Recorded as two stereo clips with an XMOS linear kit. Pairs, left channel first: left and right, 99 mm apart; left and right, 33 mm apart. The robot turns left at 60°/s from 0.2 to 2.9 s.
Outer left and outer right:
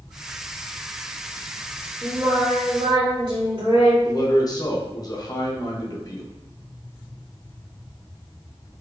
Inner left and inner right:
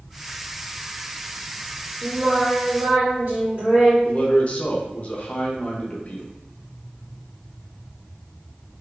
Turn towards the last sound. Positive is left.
turn(degrees=40)  # may be behind; listen again after turning